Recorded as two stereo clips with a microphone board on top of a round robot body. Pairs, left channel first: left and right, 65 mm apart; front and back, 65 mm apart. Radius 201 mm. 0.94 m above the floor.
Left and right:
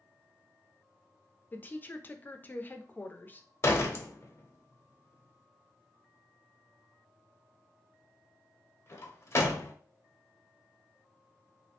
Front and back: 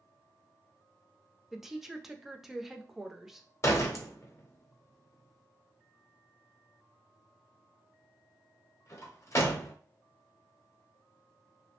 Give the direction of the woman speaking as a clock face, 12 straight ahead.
9 o'clock.